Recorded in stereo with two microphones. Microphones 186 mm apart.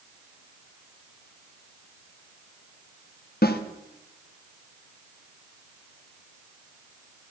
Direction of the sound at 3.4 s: 55° left (ahead or behind).